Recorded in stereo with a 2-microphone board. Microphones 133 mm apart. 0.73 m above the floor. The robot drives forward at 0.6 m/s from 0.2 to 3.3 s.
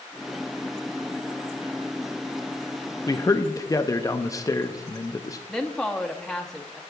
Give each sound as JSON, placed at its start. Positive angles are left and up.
{"t": 3.1, "sound": "a man speaking", "side_deg": 25, "distance_m": 0.6}
{"t": 5.5, "sound": "a woman speaking", "side_deg": 5, "distance_m": 0.7}